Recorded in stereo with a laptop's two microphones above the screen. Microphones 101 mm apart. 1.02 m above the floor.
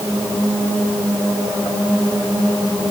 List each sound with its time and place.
Only background noise.